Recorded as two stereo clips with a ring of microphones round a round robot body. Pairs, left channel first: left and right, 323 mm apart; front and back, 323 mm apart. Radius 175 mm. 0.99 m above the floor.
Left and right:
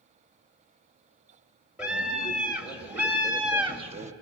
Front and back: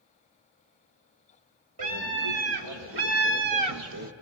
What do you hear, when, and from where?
1.8 s a scream: 175° right, 4 m; by 4.1 s 130° right, 0.8 m